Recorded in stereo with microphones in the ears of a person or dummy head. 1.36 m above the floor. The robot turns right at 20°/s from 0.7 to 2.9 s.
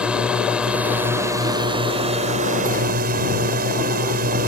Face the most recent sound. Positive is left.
turn(degrees=-125)